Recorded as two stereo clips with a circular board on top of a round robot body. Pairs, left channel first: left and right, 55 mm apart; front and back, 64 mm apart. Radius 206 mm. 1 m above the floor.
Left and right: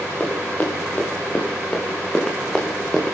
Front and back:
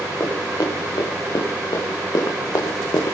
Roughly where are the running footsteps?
Ahead left.